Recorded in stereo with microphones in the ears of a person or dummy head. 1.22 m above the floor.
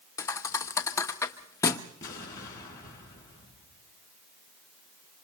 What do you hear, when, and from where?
0.2 s a thud: 15° left (ahead or behind), 1.0 m
2.0 s an explosion: 20° left (ahead or behind), 4.5 m